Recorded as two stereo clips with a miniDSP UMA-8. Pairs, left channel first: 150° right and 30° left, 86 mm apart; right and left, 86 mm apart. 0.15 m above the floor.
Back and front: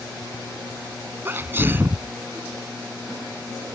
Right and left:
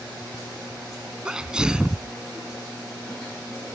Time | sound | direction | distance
1.2 | a sneeze | 25° left | ?